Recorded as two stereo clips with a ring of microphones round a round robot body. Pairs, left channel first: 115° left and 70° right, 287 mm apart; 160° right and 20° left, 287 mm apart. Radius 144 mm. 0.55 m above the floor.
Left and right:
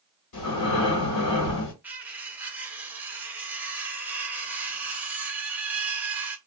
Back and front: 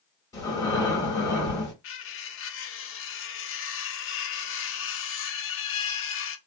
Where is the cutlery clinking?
150° right, 0.6 m.